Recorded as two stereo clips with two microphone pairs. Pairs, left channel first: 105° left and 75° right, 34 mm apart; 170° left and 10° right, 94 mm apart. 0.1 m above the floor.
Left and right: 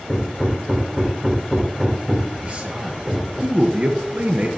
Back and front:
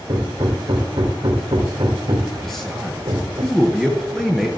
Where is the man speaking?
105° right, 1.9 m.